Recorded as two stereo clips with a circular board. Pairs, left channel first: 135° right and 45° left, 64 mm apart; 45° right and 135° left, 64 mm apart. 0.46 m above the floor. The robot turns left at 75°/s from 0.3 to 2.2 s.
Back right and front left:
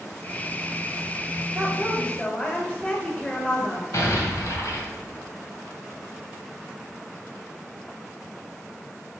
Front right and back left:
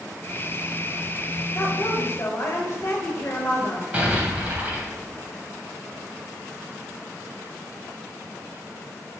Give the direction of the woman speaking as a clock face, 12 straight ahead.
1 o'clock.